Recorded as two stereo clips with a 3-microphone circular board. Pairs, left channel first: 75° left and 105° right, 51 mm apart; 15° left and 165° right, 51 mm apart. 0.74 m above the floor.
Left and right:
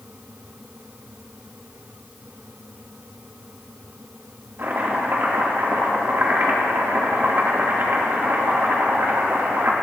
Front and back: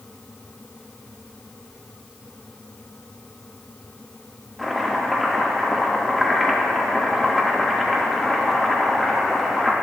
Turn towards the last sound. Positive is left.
turn(degrees=-75)